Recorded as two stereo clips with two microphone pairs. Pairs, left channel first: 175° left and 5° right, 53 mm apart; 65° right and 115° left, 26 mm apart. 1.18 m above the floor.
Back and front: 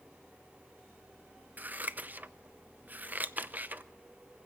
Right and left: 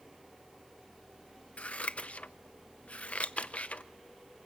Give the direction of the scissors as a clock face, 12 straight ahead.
2 o'clock.